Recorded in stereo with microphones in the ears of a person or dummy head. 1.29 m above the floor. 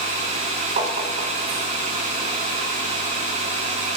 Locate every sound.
0.8 s tapping: 35° right (ahead or behind), 1.2 m